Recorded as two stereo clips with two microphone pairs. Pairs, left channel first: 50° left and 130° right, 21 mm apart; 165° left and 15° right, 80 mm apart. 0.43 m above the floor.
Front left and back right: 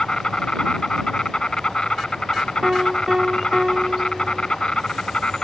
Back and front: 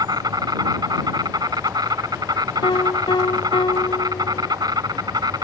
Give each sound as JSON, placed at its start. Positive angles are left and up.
{"t": 0.0, "sound": "an insect", "azimuth_deg": 10}
{"t": 2.6, "sound": "a piano", "azimuth_deg": 170}